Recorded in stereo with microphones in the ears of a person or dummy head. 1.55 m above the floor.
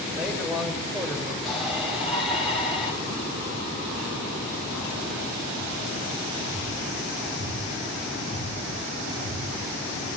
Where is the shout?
5° right (ahead or behind), 7 m.